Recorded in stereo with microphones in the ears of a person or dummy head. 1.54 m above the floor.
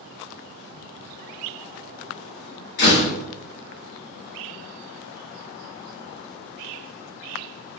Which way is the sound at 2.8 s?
65° left (ahead or behind).